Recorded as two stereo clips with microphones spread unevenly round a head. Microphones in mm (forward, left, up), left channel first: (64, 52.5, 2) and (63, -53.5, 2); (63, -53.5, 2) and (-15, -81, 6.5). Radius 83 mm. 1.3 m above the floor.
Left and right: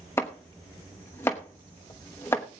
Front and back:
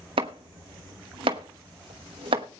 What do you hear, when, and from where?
0.2 s chopping: 165° left, 0.9 m